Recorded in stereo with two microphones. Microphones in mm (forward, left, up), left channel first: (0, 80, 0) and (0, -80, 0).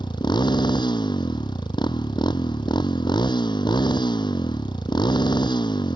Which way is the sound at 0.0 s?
30° left (ahead or behind).